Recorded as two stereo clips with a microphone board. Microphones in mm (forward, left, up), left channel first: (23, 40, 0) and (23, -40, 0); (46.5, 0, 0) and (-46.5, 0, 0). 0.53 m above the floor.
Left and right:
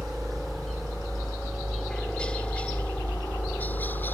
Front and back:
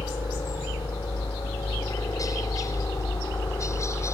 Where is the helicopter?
Straight ahead; by 4.2 s 40° left.